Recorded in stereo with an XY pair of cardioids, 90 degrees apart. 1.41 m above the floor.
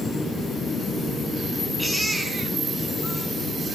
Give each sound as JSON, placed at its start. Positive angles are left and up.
{"t": 1.8, "sound": "a baby crying", "azimuth_deg": 0, "distance_m": 5.0}